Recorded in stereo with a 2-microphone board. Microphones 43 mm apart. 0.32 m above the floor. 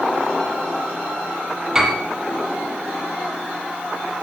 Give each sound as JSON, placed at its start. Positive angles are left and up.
{"t": 1.8, "sound": "a piano", "side_deg": -15, "distance_m": 3.0}